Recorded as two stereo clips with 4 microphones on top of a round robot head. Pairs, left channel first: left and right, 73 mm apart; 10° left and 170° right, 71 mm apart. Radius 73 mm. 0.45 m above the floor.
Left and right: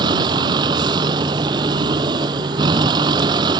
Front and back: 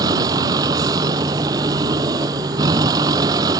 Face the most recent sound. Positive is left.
turn(degrees=-125)